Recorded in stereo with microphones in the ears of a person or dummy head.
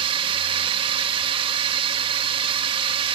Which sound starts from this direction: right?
A drone, at 0.0 s.